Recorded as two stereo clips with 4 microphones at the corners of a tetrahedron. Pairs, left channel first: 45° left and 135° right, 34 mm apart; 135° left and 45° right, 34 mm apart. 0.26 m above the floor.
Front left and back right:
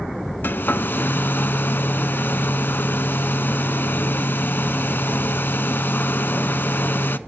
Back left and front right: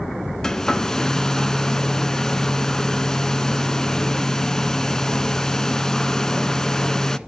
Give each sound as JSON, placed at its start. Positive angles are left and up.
{"t": 0.4, "sound": "a hair dryer", "azimuth_deg": 60, "distance_m": 0.5}